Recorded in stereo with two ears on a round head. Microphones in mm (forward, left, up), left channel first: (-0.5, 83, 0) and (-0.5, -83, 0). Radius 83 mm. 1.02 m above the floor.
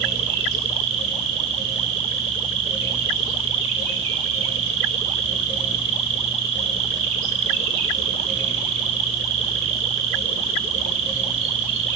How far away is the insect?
About 5 m.